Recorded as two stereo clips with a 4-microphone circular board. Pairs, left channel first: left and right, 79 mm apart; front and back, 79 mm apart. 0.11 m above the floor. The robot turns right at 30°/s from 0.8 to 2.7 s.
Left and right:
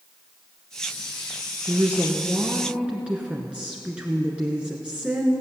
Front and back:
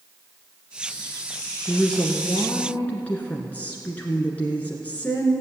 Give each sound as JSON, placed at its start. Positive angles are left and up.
{"t": 1.7, "sound": "a woman speaking", "azimuth_deg": -65, "distance_m": 1.6}